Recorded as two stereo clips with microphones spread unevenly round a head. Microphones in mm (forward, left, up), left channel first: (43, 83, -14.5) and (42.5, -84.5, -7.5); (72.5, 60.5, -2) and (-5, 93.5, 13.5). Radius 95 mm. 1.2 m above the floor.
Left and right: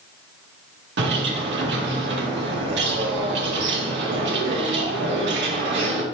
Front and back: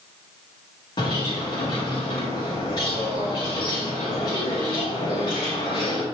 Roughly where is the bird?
Right.